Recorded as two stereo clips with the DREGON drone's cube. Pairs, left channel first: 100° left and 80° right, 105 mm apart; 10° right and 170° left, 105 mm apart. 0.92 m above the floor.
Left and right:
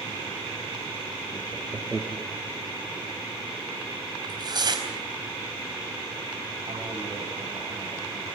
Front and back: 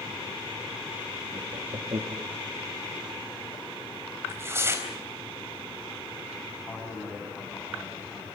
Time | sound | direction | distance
1.3 | laughter | 160° right | 1.6 m
4.2 | tearing paper | 125° right | 3.5 m
6.7 | a man speaking | 90° right | 9.5 m